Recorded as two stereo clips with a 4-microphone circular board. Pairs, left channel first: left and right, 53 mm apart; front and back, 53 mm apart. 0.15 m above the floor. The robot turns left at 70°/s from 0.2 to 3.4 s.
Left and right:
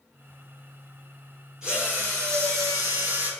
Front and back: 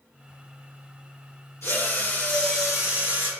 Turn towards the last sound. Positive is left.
turn(degrees=-140)